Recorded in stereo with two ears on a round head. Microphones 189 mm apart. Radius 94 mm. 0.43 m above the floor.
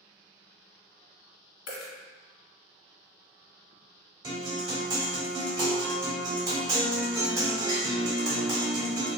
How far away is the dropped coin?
About 0.9 m.